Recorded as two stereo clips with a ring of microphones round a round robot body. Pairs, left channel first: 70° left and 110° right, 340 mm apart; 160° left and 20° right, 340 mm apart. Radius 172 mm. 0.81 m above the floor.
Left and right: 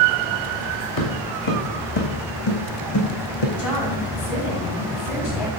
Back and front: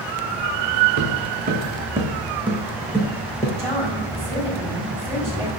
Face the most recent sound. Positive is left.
turn(degrees=60)